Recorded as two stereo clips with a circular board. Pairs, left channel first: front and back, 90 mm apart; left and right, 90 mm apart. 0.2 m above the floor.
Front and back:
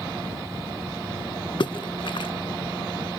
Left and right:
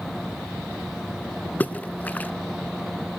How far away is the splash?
About 0.5 m.